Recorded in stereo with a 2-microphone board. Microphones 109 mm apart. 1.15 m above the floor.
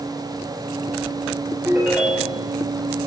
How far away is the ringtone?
About 3 m.